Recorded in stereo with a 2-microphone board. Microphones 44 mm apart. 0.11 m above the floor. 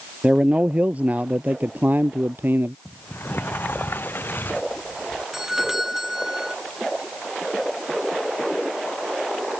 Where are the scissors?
No scissors in this recording.